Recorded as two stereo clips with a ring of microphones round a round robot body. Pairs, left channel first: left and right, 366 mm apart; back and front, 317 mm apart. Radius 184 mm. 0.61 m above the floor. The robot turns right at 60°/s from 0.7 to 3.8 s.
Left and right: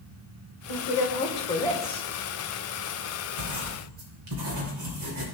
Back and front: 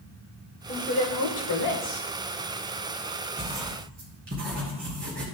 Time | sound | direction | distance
0.7 | a woman speaking | 115° left | 2.5 m
3.4 | writing | 85° right | 2.5 m